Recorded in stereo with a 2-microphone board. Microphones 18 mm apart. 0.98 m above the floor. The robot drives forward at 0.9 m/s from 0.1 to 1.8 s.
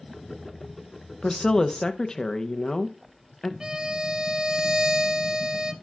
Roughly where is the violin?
Right.